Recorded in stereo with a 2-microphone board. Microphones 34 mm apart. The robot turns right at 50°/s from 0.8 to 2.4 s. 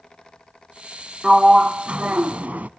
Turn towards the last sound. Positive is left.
turn(degrees=-100)